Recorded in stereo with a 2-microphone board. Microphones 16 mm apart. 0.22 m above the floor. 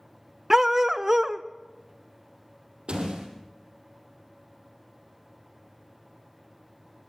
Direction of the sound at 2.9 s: 80° right.